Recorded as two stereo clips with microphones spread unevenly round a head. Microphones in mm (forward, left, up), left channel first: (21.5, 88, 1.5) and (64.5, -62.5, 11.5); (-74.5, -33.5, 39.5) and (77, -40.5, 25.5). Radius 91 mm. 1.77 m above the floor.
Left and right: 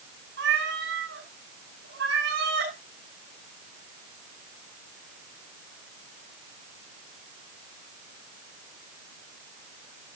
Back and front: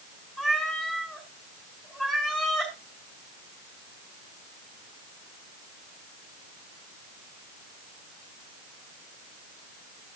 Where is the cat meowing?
95° right, 5.5 m.